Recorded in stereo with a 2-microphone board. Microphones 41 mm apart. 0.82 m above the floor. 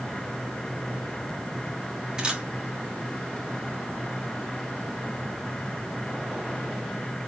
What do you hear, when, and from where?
2.2 s a camera shutter: 20° right (ahead or behind), 2 m